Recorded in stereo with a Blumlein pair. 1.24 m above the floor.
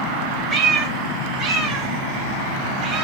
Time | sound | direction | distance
0.5 | a cat meowing | 25° right | 2.0 m